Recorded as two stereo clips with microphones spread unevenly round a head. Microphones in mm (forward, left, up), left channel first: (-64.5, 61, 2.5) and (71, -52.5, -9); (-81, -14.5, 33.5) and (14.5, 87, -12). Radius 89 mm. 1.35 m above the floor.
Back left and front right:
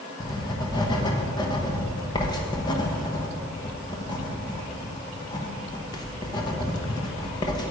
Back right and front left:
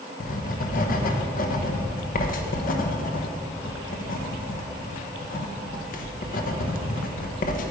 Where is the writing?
150° right, 1.1 m.